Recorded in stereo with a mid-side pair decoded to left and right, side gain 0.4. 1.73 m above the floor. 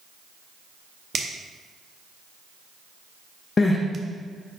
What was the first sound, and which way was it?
A finger snap, 40° right.